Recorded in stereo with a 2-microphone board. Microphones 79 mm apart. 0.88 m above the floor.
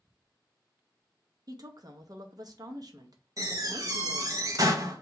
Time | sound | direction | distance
1.5 | a woman speaking | 55° right (ahead or behind) | 0.6 m
3.4 | a door slam | 45° right (ahead or behind) | 0.6 m